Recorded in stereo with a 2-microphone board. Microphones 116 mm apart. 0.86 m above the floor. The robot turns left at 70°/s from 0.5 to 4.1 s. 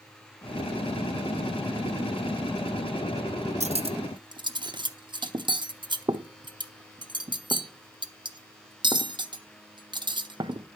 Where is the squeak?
I don't hear a squeak.